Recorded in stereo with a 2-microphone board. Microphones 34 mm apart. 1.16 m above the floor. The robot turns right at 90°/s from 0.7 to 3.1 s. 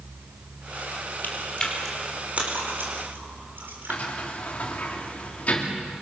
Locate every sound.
1.2 s chewing: 60° left (ahead or behind), 4.5 m; by 4.0 s 70° right (ahead or behind), 4.5 m
3.9 s a sliding door: 40° left (ahead or behind), 3 m